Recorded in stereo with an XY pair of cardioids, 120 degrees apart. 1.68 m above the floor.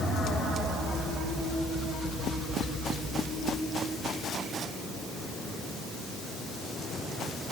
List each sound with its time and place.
Only background noise.